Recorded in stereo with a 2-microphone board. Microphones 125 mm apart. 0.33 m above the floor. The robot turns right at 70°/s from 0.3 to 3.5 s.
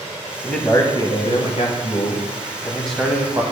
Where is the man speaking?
5° left, 1.5 m; by 3.4 s 145° right, 1.5 m.